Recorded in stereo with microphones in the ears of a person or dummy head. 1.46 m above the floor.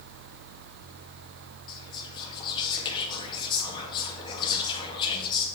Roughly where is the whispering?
Left.